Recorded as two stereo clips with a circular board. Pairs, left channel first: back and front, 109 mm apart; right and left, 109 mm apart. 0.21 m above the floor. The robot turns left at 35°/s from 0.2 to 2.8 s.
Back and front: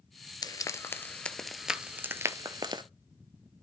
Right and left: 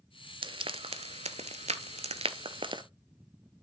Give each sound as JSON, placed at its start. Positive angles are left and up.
{"t": 0.4, "sound": "frying", "azimuth_deg": 130, "distance_m": 0.6}